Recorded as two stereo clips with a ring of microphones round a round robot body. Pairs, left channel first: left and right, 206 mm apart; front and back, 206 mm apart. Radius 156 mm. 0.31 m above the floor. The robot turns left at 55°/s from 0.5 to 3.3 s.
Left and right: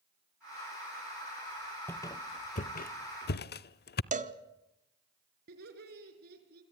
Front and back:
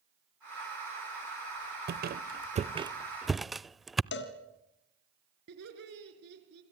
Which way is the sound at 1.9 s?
170° left.